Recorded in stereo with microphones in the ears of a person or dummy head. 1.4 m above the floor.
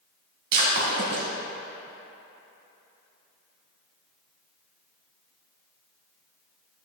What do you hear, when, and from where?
0.5 s breaking glass: 60° right (ahead or behind), 3 m